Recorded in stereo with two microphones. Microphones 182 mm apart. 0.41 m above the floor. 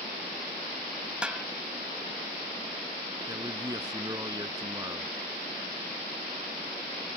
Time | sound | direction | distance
1.2 | a snare drum | 5° right (ahead or behind) | ?
3.3 | a man speaking | 20° right (ahead or behind) | ?